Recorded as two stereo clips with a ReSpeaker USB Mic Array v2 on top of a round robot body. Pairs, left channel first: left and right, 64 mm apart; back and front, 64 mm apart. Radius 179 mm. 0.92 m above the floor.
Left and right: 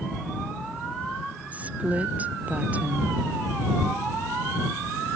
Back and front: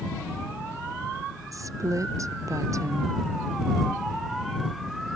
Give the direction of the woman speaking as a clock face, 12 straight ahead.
1 o'clock.